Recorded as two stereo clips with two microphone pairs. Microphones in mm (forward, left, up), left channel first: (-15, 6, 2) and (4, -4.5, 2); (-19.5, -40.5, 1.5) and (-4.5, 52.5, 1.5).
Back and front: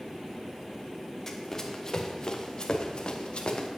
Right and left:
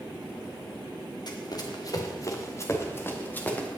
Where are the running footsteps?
135° right, 2.5 m; by 3.7 s 175° right, 2.5 m.